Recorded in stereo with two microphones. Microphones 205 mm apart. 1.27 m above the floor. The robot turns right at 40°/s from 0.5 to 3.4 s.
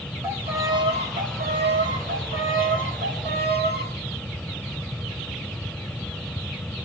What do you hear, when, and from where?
0.2 s a violin: 170° right, 2.5 m; by 3.9 s 55° right, 2.5 m